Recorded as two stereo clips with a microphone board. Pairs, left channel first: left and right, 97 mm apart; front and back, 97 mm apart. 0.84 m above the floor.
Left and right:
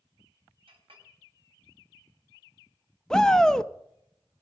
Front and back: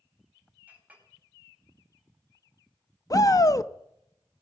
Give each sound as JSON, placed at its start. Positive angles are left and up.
{"t": 0.7, "sound": "a clink", "azimuth_deg": -105, "distance_m": 3.5}
{"t": 3.1, "sound": "a shout", "azimuth_deg": 10, "distance_m": 0.7}